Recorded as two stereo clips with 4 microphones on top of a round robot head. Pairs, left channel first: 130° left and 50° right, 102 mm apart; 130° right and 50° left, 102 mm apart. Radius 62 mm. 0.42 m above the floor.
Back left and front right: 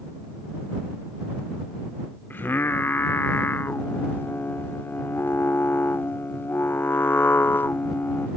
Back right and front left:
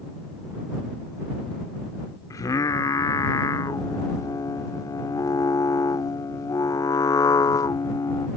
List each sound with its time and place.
2.3 s singing: 170° right